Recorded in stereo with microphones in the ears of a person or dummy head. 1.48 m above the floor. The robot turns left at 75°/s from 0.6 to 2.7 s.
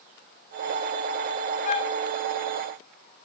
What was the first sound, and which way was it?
A flute, 45° left (ahead or behind).